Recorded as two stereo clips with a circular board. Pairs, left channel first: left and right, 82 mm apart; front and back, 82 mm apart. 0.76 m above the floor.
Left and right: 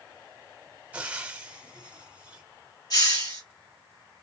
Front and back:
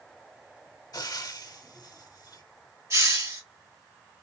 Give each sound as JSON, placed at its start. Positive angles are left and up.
{"t": 0.9, "sound": "frying", "azimuth_deg": -20, "distance_m": 0.8}
{"t": 2.9, "sound": "a hiss", "azimuth_deg": 125, "distance_m": 1.6}